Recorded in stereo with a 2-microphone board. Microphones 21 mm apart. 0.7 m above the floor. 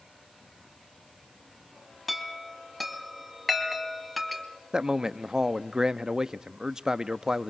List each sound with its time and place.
2.1 s a chime: centre (ahead or behind), 2 m
4.7 s a man speaking: 30° right (ahead or behind), 0.7 m